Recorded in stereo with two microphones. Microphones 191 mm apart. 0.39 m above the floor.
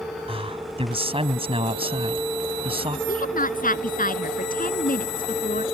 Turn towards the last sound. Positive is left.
turn(degrees=50)  # may be behind; listen again after turning